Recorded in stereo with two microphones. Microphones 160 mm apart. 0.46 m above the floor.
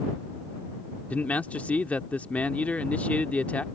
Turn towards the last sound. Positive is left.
turn(degrees=10)  # may be behind; listen again after turning